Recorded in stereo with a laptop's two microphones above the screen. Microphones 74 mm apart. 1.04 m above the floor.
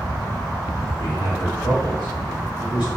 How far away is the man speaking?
About 1.1 m.